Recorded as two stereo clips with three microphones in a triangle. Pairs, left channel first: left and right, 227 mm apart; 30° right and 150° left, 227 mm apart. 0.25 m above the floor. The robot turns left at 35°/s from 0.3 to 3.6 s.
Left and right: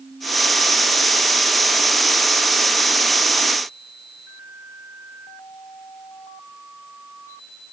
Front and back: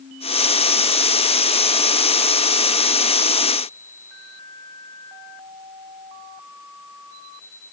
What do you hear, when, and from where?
Only background noise.